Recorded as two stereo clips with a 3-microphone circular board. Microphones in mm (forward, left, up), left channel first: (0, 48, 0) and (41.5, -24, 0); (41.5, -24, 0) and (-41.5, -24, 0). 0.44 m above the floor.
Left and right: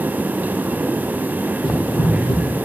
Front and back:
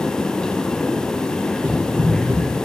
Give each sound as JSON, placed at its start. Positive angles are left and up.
{"t": 1.6, "sound": "running footsteps", "azimuth_deg": 130, "distance_m": 6.5}